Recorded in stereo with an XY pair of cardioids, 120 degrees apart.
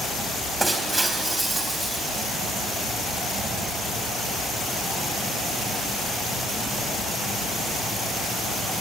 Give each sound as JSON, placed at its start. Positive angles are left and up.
{"t": 0.6, "sound": "breaking glass", "azimuth_deg": -10, "distance_m": 3.5}